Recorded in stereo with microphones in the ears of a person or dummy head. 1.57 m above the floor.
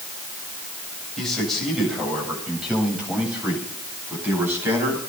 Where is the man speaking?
5° left (ahead or behind), 7.5 m; by 5.0 s 15° right (ahead or behind), 9.5 m.